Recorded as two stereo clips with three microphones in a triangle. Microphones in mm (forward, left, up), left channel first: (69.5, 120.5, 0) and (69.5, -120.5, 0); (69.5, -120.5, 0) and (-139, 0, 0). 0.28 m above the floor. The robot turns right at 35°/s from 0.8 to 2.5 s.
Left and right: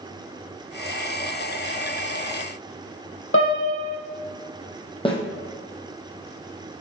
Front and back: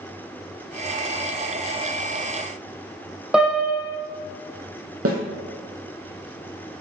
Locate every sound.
3.3 s a piano: 65° left, 1.7 m
5.0 s a snare drum: 155° left, 1.8 m